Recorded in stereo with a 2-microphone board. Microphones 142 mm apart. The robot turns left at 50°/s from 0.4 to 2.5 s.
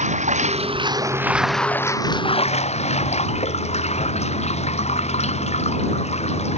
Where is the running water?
125° right; by 6.6 s 130° left.